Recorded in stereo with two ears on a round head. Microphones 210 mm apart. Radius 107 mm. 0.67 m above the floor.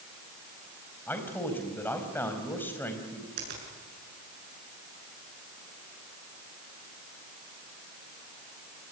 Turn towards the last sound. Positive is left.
turn(degrees=-45)  # may be behind; listen again after turning